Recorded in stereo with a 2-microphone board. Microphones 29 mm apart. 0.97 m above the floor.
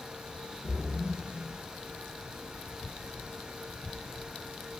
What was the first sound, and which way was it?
A splash, 35° left (ahead or behind).